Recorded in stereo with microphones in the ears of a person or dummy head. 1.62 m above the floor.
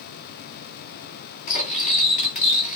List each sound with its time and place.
1.5 s cutlery clinking: 40° left (ahead or behind), 1.3 m